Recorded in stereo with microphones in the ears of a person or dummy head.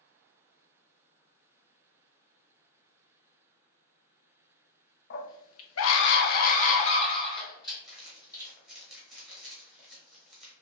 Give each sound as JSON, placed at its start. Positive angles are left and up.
{"t": 5.1, "sound": "a scream", "side_deg": 55, "distance_m": 0.7}
{"t": 7.8, "sound": "crumpling", "side_deg": 0, "distance_m": 0.8}